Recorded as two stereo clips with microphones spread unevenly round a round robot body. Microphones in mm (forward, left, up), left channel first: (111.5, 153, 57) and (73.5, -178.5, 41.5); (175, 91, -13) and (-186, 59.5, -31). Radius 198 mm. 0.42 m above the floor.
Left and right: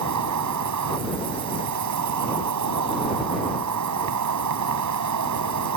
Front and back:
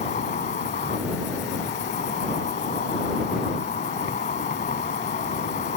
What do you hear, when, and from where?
0.0 s an insect: 65° right